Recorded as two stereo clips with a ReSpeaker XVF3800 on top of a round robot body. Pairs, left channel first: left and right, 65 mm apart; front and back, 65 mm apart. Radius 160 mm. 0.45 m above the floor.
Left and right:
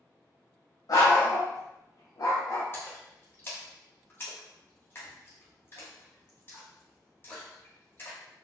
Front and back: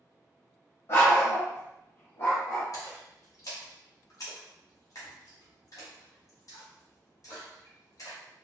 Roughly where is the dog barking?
Ahead left.